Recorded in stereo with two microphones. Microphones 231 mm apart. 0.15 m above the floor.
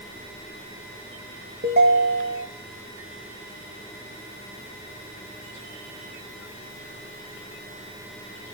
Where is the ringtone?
50° right (ahead or behind), 1.0 m.